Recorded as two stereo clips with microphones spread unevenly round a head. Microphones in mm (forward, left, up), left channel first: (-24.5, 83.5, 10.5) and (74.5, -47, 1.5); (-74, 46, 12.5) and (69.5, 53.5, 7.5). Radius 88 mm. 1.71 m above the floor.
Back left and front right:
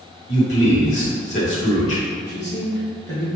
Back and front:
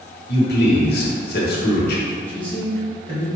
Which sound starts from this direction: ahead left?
A man speaking, at 2.3 s.